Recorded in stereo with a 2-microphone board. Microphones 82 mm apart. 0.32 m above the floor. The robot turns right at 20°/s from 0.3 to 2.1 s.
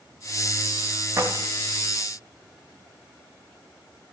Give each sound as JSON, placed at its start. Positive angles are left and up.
{"t": 1.2, "sound": "keys jangling", "side_deg": -30, "distance_m": 1.8}